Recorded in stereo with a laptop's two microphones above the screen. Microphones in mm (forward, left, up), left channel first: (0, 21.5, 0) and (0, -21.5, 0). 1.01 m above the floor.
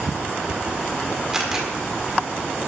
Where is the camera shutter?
10° right (ahead or behind), 1.7 m.